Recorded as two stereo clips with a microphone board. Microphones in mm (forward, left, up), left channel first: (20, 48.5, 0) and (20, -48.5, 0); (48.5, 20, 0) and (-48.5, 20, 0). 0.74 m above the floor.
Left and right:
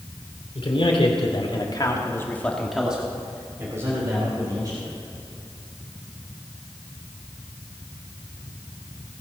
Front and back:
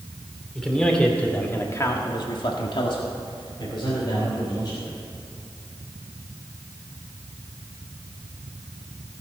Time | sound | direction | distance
0.6 | a man speaking | 85° left | 2.5 m